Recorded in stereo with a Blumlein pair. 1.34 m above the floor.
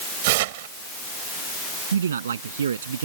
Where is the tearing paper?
50° right.